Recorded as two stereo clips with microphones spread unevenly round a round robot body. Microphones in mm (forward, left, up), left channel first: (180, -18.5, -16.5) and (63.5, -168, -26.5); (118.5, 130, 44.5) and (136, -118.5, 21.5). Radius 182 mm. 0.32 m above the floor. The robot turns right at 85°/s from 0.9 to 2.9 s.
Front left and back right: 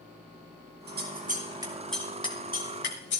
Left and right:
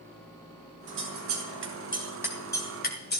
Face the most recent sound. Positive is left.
turn(degrees=45)